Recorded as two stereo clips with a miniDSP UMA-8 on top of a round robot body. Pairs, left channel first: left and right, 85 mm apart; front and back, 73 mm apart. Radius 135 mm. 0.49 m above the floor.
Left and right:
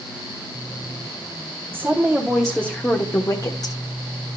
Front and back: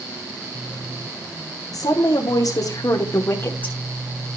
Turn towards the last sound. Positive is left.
turn(degrees=65)